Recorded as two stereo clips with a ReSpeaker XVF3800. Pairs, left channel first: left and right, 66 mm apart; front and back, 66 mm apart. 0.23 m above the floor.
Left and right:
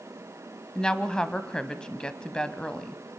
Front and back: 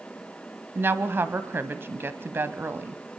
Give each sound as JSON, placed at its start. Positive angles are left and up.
{"t": 0.8, "sound": "a woman speaking", "azimuth_deg": 160, "distance_m": 1.2}